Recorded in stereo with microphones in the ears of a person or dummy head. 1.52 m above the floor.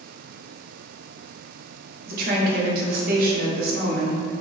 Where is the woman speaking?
55° right (ahead or behind), 1.1 m.